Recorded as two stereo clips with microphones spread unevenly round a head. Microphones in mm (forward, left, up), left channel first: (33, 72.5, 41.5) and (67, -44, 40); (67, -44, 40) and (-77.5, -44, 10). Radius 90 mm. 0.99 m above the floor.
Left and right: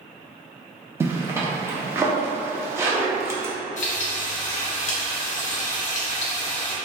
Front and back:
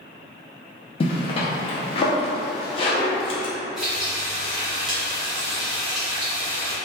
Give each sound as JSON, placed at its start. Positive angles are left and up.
{"t": 1.0, "sound": "a zipper", "azimuth_deg": -30, "distance_m": 0.6}
{"t": 3.8, "sound": "frying", "azimuth_deg": 90, "distance_m": 0.5}